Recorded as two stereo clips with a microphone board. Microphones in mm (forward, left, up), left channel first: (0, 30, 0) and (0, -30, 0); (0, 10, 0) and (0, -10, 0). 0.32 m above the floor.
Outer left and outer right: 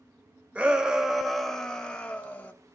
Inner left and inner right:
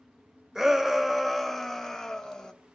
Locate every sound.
0.6 s a shout: 20° right (ahead or behind), 0.9 m; by 2.5 s 25° left (ahead or behind), 1.2 m